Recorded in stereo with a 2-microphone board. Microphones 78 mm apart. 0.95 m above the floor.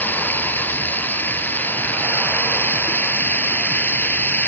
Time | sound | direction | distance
0.0 | running water | 25° left (ahead or behind) | ?